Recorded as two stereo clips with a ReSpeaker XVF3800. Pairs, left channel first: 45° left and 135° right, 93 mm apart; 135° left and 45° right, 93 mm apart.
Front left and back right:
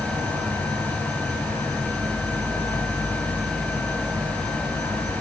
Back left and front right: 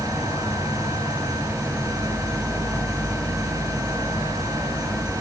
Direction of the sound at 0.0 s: 175° right.